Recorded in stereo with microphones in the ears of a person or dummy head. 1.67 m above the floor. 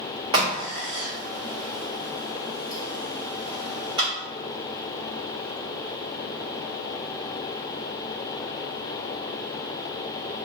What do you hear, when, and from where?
0.3 s a crack: 30° right (ahead or behind), 1.2 m